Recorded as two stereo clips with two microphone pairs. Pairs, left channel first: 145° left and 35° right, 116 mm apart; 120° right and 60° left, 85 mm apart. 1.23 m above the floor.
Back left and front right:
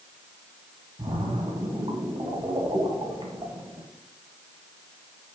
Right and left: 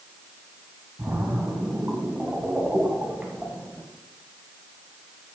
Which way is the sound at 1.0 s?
10° right.